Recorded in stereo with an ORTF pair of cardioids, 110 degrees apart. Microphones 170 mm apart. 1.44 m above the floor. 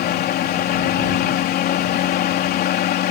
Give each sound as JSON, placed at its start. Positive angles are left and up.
{"t": 0.0, "sound": "a fan", "azimuth_deg": 70}